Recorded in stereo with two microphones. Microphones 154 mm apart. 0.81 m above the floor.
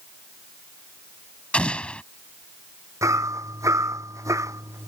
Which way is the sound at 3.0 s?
20° right (ahead or behind).